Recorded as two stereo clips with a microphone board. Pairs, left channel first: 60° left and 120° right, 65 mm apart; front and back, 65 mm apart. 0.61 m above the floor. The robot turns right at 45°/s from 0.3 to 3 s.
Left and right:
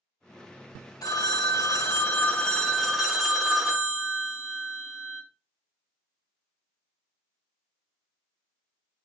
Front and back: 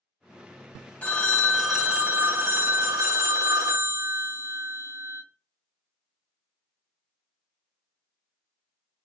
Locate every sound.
1.0 s a phone ringing: 65° left, 0.5 m; by 5.2 s 155° left, 0.5 m